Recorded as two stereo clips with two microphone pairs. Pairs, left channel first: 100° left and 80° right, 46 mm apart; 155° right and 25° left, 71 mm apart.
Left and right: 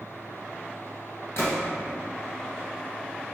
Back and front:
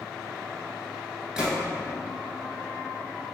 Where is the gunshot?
105° left, 1.0 m.